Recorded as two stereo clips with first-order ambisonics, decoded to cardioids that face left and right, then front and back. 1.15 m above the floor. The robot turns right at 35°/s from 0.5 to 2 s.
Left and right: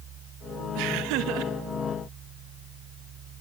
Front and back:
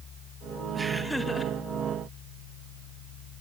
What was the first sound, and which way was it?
Laughter, 100° right.